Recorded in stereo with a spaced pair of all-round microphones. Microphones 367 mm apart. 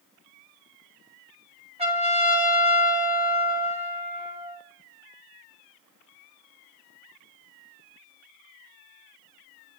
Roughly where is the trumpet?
Centre.